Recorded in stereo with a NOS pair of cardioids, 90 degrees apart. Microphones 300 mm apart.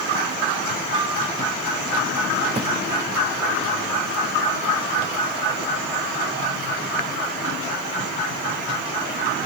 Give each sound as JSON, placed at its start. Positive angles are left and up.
{"t": 0.9, "sound": "a flute", "azimuth_deg": -15, "distance_m": 6.0}
{"t": 2.5, "sound": "footsteps", "azimuth_deg": -20, "distance_m": 6.0}